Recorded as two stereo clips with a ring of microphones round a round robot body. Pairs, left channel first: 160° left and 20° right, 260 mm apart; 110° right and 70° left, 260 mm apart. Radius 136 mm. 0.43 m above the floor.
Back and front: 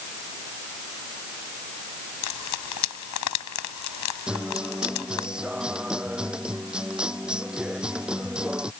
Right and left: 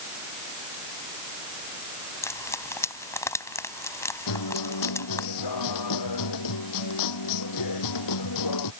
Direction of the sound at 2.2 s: 170° left.